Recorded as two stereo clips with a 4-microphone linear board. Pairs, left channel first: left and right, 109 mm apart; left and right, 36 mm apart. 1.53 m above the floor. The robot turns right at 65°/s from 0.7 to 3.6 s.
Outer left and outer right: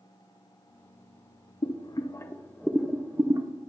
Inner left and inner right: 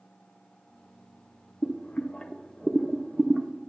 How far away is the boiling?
About 0.6 m.